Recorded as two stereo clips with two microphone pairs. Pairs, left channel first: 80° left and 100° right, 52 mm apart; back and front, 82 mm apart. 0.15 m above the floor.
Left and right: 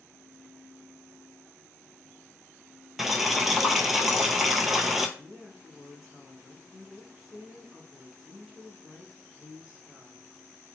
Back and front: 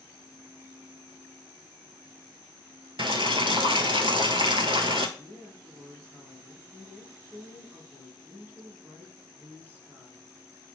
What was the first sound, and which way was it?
Boiling, 15° right.